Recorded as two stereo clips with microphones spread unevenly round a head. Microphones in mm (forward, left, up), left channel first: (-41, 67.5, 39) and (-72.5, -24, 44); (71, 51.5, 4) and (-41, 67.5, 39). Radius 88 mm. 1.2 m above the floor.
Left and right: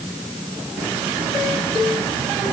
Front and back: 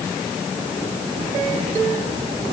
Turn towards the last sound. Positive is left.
No sound to turn to.